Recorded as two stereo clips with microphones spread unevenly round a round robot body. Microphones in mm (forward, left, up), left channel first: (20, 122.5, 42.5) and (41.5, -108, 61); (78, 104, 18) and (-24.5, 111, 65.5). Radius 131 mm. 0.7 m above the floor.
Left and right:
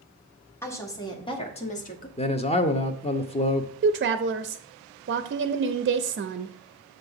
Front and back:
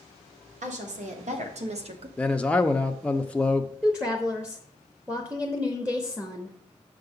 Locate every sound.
0.6 s a woman speaking: 175° left, 1.8 m; by 2.1 s 140° left, 1.2 m
2.2 s a man speaking: 45° left, 0.6 m
3.8 s a woman speaking: 80° right, 0.6 m